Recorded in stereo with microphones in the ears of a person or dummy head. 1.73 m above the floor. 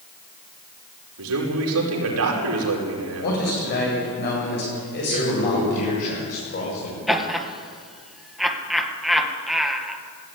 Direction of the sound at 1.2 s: 85° right.